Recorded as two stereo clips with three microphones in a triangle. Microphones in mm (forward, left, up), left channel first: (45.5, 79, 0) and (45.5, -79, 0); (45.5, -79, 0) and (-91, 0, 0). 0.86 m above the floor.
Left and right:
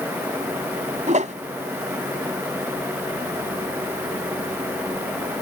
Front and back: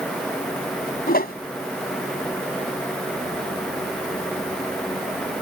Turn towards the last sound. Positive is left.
turn(degrees=-50)